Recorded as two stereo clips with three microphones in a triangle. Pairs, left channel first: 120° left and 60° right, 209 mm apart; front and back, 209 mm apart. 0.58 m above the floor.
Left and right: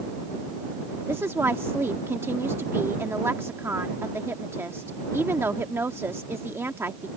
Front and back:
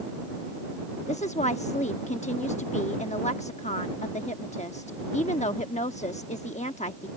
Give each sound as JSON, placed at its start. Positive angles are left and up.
{"t": 1.1, "sound": "a woman speaking", "azimuth_deg": 10}